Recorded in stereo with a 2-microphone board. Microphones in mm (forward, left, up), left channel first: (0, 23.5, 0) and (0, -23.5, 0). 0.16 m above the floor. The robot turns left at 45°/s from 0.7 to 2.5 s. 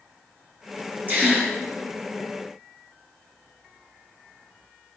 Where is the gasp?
35° right (ahead or behind), 2 m; by 1.5 s 20° right (ahead or behind), 2 m.